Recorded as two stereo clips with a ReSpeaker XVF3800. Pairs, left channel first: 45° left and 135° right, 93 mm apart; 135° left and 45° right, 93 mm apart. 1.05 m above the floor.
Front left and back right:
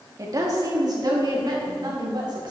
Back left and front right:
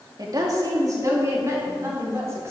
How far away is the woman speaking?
About 2 m.